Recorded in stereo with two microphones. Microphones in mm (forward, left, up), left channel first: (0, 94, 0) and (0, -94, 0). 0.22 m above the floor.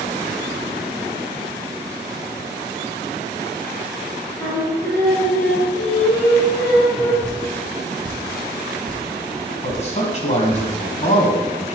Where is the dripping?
45° right (ahead or behind), 2.0 m.